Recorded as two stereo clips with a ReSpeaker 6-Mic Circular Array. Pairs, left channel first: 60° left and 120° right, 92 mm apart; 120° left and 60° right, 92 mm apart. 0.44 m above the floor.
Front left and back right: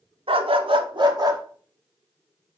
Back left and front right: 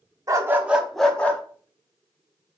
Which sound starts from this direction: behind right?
A dog barking, at 0.3 s.